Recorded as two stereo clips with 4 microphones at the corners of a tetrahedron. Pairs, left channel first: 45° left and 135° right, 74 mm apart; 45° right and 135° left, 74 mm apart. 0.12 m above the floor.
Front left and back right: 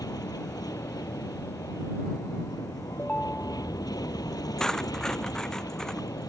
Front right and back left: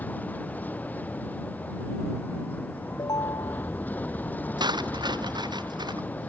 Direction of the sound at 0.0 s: 20° left.